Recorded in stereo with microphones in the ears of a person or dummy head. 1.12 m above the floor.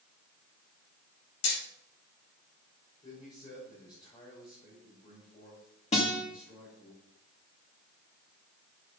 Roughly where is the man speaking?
Left.